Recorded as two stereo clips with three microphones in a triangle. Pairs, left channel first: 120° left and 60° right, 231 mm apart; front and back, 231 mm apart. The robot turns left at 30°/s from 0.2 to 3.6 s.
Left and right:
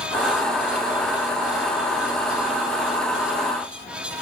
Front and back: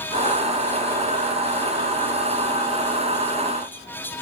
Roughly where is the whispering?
I don't hear whispering.